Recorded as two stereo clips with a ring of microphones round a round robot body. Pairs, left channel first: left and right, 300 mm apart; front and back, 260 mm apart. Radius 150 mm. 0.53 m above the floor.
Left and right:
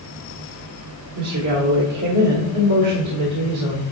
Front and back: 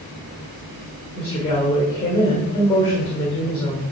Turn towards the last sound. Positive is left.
turn(degrees=-75)